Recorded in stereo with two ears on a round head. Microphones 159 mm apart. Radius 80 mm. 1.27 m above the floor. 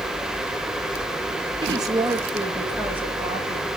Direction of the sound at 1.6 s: 30° right (ahead or behind).